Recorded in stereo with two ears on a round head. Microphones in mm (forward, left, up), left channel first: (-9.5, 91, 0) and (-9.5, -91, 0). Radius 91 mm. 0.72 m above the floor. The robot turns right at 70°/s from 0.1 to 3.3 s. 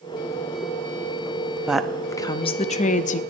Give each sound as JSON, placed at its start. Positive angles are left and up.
{"t": 1.7, "sound": "a woman speaking", "azimuth_deg": -10, "distance_m": 0.6}